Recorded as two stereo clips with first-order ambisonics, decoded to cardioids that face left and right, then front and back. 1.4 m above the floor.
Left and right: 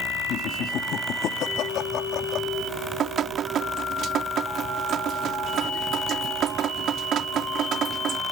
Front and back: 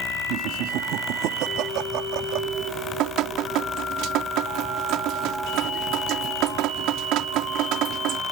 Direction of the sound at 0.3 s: 145° left.